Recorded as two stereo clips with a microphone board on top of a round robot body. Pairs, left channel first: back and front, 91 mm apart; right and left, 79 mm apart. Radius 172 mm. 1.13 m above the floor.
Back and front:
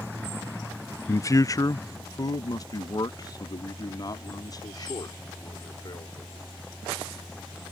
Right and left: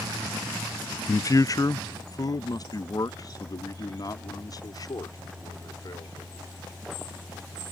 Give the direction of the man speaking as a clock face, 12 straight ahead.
4 o'clock.